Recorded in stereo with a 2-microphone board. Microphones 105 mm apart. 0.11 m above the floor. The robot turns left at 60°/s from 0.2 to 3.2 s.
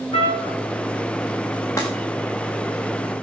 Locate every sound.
0.1 s a trumpet: 70° left (ahead or behind), 7 m; by 0.6 s 85° left, 7 m
1.8 s breaking glass: 25° left (ahead or behind), 7 m; by 1.9 s 20° left (ahead or behind), 7 m